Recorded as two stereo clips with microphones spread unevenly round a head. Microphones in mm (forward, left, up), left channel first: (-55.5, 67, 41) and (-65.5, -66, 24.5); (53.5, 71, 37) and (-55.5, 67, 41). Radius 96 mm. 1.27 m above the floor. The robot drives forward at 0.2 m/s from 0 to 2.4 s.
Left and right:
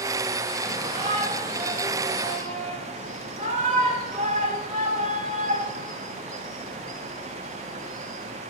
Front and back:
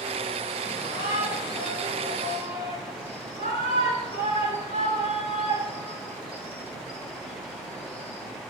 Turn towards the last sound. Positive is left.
turn(degrees=-120)